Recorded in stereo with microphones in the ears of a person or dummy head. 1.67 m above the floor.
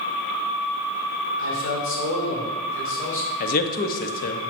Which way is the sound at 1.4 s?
65° left (ahead or behind).